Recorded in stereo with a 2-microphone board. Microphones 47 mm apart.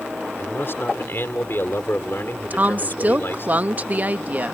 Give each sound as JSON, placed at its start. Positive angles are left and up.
{"t": 0.4, "sound": "a man speaking", "side_deg": 55}
{"t": 2.5, "sound": "a woman speaking", "side_deg": -35}